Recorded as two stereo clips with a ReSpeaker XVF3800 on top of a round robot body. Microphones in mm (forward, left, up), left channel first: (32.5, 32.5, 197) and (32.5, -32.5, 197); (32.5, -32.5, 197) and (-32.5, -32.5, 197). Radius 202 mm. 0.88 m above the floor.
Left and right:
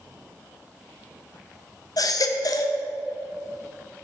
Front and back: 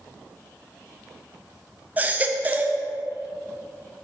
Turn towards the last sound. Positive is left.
turn(degrees=115)